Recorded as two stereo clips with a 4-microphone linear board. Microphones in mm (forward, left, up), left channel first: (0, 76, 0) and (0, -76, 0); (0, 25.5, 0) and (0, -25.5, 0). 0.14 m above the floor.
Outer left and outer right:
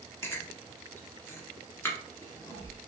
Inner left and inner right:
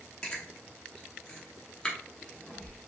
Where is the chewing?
15° left (ahead or behind), 1.1 m.